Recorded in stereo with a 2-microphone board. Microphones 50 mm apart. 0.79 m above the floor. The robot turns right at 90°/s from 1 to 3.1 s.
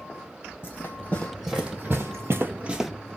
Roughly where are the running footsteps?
Left.